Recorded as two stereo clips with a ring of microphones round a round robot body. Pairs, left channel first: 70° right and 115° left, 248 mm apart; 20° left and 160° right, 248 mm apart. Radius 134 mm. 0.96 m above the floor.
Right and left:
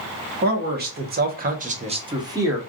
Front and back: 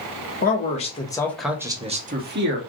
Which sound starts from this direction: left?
A man speaking, at 0.4 s.